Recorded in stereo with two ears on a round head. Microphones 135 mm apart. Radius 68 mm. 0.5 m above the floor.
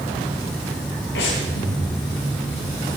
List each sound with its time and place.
1.1 s breathing: 85° left, 6.5 m